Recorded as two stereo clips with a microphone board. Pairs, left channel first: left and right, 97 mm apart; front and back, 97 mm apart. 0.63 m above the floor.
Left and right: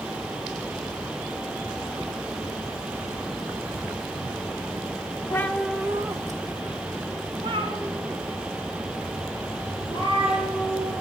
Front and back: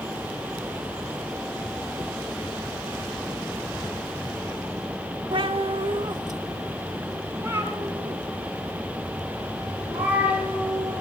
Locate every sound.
5.3 s a cat meowing: 150° left, 0.7 m; by 11.0 s 105° right, 6.5 m